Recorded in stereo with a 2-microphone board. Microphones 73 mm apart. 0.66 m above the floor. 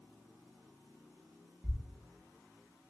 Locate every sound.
1.6 s a thud: 15° right (ahead or behind), 0.7 m